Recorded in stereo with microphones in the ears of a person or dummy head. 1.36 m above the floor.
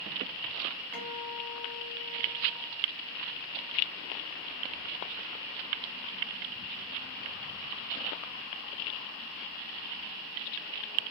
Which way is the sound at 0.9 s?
5° left (ahead or behind).